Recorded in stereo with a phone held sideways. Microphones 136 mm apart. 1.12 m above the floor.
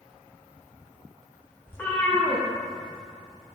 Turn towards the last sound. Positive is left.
turn(degrees=0)  # may be behind; listen again after turning